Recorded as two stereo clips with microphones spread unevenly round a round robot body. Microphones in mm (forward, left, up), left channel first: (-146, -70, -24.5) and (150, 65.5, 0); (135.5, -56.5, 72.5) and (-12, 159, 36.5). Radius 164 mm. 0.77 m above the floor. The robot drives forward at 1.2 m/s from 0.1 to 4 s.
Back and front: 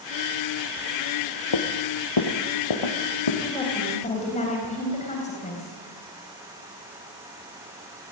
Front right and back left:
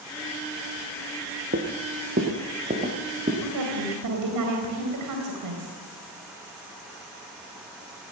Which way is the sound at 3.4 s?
125° left.